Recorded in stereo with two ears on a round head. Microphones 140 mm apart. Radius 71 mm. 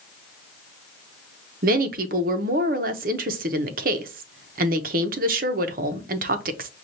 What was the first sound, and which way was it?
A woman speaking, 60° right (ahead or behind).